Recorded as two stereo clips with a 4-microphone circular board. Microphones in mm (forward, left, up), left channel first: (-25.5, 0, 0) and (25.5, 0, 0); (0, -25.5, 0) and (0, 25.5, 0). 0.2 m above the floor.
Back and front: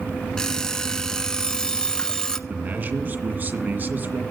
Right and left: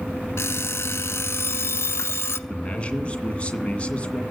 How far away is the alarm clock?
About 0.8 m.